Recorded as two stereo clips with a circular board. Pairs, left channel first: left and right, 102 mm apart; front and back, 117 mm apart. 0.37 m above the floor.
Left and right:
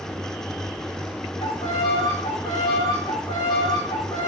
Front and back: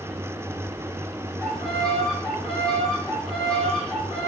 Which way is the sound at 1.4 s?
85° left.